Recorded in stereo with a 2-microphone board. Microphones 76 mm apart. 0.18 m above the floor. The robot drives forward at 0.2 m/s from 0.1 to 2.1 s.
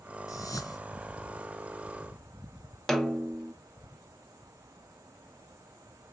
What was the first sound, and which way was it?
A whoosh, 50° left (ahead or behind).